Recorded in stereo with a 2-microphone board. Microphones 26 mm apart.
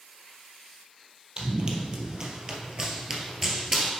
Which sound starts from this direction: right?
Running footsteps, at 1.4 s.